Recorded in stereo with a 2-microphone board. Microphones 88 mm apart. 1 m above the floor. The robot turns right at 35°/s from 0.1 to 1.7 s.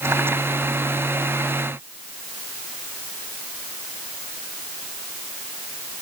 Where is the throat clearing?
I don't hear throat clearing.